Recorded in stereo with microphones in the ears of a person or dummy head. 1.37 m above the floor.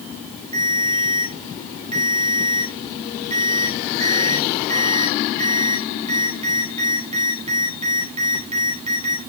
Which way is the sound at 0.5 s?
30° right (ahead or behind).